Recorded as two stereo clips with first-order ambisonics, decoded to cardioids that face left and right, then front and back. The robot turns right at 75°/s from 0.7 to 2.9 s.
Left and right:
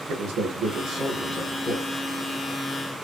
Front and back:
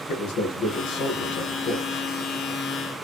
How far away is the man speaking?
About 1.6 m.